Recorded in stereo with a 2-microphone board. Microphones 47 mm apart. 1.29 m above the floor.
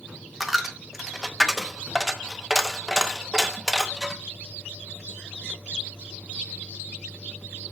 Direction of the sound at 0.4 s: 5° right (ahead or behind).